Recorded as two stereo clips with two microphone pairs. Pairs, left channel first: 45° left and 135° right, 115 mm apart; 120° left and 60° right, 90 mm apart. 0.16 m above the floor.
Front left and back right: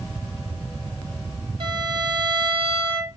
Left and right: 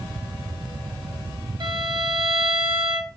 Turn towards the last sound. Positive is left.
turn(degrees=-90)